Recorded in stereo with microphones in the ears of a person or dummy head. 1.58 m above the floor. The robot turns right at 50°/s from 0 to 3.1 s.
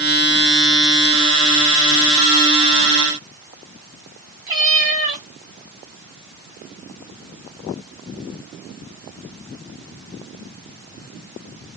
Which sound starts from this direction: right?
A cat meowing, at 4.5 s.